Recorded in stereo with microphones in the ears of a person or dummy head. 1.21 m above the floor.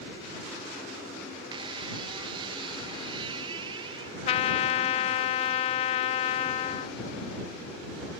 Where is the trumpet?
35° left (ahead or behind).